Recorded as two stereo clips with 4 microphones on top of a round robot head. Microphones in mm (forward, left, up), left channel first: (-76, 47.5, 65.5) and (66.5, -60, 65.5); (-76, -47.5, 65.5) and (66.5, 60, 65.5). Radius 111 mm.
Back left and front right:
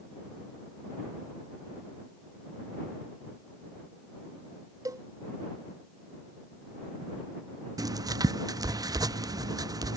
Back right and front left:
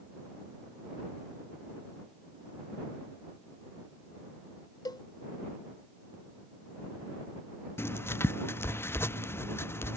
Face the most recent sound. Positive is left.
turn(degrees=-80)